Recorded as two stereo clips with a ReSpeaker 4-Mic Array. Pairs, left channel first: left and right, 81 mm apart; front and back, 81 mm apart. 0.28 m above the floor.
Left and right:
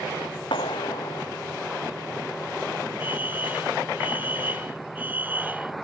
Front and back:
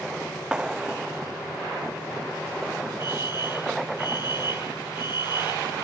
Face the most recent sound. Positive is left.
turn(degrees=-20)